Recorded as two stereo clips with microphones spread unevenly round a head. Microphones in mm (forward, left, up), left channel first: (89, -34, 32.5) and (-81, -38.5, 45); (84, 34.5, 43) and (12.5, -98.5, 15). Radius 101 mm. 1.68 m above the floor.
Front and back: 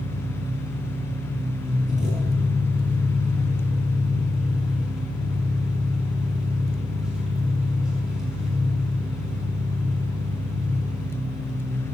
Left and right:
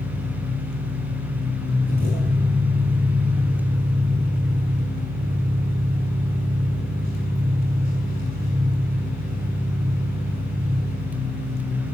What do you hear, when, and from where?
0.0 s an engine running: 95° right, 6 m